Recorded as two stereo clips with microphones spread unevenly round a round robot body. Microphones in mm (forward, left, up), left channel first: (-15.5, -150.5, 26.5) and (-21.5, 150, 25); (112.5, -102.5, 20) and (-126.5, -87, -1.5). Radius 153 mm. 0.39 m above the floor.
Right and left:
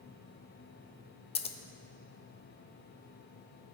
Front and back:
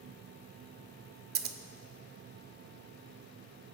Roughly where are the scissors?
Behind right.